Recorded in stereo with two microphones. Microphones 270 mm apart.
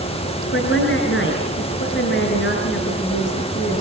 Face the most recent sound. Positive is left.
turn(degrees=45)  # may be behind; listen again after turning